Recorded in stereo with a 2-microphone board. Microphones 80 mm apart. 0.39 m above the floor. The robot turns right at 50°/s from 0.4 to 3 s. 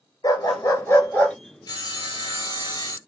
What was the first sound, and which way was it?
A dog barking, 120° left.